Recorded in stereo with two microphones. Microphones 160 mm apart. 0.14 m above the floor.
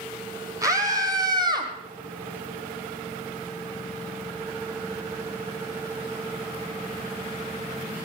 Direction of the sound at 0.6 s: 20° right (ahead or behind).